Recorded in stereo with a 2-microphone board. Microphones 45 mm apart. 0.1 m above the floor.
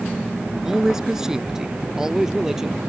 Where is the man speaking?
10° right (ahead or behind).